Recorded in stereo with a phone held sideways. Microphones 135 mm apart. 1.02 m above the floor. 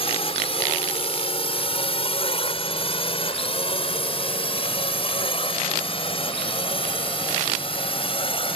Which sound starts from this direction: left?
A drone, at 0.0 s.